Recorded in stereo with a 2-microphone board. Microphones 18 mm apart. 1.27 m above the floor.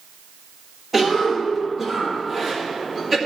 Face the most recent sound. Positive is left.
turn(degrees=-10)  # may be behind; listen again after turning